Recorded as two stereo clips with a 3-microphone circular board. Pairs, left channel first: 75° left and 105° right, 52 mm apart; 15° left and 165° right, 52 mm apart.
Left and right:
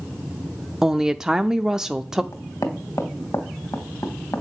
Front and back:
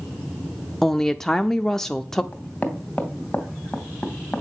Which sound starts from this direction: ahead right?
A woman speaking, at 0.8 s.